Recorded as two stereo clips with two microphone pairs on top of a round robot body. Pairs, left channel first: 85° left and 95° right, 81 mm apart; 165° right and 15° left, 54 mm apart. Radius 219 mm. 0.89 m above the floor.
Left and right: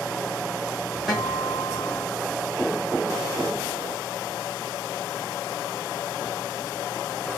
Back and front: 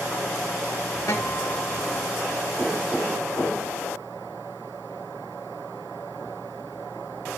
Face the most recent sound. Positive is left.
turn(degrees=175)